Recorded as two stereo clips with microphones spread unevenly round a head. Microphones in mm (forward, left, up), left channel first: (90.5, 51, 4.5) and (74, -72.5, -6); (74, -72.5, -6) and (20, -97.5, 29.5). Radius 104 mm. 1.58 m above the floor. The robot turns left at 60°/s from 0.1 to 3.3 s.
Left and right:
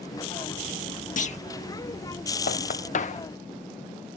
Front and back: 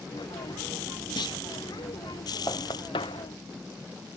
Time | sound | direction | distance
1.2 | a clunk | 60° left | ?
2.5 | knocking | 100° left | ?